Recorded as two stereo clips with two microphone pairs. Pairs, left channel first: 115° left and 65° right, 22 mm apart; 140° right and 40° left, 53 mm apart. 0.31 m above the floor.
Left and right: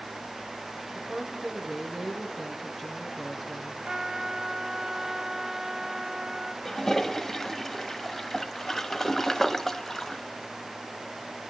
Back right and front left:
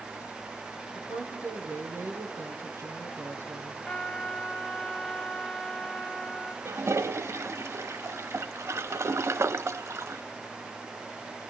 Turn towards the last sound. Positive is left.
turn(degrees=45)